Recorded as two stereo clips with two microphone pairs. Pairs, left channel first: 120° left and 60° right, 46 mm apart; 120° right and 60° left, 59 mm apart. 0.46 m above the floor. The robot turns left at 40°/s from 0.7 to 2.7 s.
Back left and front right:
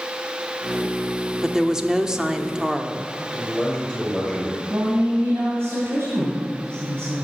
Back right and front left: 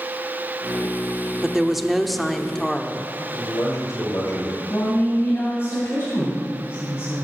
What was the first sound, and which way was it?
A woman speaking, 10° right.